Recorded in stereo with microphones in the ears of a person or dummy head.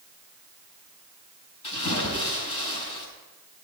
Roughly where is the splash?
Left.